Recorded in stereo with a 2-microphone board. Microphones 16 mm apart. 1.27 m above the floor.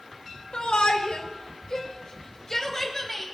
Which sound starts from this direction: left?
A shout, at 0.5 s.